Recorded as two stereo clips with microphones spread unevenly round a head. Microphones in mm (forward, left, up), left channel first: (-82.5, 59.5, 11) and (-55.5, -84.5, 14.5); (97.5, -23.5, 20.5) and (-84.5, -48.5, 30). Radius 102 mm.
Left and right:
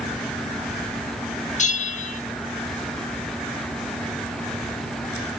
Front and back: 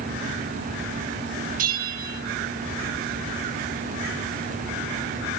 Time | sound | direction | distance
1.6 | a bell | 135° left | 2.0 m